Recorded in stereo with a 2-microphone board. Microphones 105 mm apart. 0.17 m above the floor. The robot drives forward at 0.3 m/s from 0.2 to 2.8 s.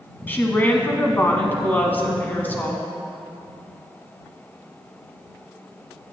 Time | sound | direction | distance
0.3 | a woman speaking | 20° left (ahead or behind) | 1.1 m